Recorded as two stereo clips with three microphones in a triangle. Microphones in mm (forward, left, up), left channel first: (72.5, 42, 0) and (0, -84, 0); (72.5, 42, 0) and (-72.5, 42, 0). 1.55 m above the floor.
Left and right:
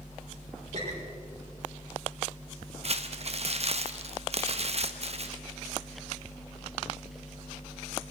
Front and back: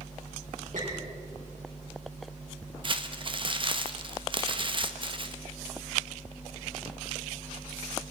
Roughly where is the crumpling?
Behind right.